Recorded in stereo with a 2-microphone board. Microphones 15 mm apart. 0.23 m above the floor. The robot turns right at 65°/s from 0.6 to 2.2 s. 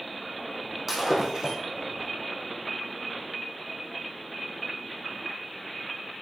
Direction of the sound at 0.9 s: 165° right.